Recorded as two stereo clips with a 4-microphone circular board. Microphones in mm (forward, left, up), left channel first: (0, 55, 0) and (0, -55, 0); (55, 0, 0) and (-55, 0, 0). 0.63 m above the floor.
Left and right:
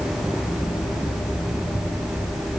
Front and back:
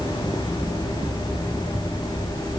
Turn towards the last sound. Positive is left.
No sound to turn to.